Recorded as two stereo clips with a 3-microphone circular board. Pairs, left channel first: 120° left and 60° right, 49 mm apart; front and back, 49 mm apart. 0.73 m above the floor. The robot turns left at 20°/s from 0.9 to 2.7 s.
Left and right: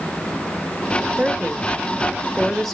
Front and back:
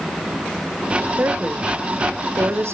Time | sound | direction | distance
1.2 | a woman speaking | 120° right | 1.5 m